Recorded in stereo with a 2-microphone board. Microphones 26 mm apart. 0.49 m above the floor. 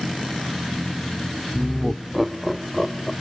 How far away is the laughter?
About 0.8 m.